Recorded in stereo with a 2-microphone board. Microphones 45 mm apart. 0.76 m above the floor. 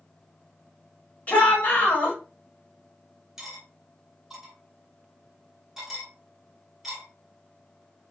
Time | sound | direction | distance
1.3 | a shout | 35° left (ahead or behind) | 1.4 m
3.4 | cutlery clinking | 10° right (ahead or behind) | 1.1 m